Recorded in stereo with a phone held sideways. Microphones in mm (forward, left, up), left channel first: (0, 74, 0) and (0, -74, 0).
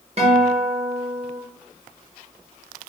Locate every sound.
0.2 s a guitar: 45° right (ahead or behind), 0.8 m